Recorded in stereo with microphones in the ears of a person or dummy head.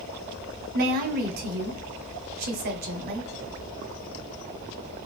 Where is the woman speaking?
50° right (ahead or behind), 0.7 m.